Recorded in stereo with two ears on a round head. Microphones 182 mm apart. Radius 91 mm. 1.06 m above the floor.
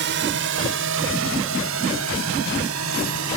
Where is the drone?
60° right (ahead or behind); by 3.4 s 80° right.